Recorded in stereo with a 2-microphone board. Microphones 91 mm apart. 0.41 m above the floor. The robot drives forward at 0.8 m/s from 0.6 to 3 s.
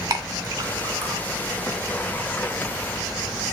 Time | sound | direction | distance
0.1 | a clink | 45° right (ahead or behind) | 1.5 m